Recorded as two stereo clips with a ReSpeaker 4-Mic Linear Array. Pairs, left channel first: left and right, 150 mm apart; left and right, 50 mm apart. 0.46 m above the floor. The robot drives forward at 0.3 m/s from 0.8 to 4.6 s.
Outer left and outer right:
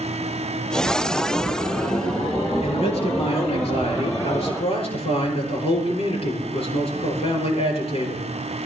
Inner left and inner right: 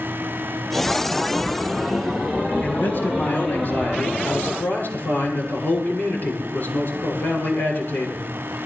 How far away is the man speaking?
About 8 m.